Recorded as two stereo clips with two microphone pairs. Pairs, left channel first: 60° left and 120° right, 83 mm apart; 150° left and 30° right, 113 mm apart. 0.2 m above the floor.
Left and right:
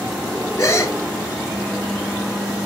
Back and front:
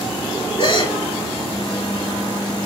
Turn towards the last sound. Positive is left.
turn(degrees=115)